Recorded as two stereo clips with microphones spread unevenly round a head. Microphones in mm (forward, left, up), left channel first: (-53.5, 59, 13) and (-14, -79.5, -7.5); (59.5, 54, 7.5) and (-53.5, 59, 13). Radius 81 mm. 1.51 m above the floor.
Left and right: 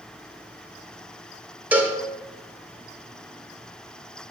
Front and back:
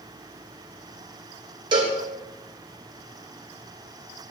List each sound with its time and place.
1.7 s a cowbell: 160° right, 0.8 m